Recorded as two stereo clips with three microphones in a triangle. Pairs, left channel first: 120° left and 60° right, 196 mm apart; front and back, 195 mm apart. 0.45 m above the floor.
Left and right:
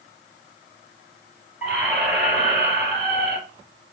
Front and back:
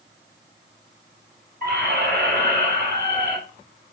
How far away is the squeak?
About 3.5 m.